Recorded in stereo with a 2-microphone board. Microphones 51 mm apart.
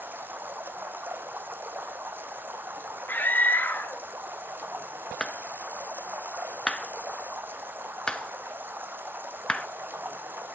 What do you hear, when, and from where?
0.0 s running water: 45° right (ahead or behind), 1.3 m
3.1 s a scream: 40° left (ahead or behind), 1.8 m
5.2 s a clap: 20° left (ahead or behind), 1.0 m